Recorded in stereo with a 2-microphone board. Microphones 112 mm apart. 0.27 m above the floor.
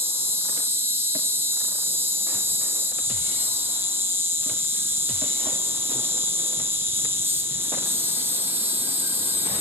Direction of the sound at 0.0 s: 20° right (ahead or behind).